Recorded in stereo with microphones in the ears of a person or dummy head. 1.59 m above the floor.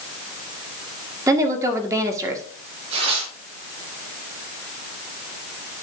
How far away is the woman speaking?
About 1.5 m.